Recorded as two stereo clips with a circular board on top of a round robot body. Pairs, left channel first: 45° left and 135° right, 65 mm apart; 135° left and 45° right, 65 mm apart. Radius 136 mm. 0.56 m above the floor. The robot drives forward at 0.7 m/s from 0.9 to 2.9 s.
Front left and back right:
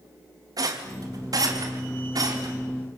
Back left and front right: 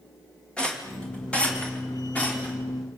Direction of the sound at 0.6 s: 150° right.